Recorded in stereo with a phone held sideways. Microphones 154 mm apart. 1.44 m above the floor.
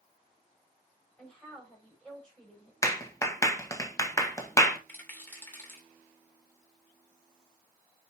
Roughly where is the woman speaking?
Centre.